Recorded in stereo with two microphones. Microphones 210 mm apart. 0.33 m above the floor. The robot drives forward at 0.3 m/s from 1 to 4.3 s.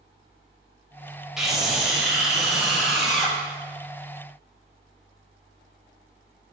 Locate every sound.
1.4 s a scream: centre (ahead or behind), 1.8 m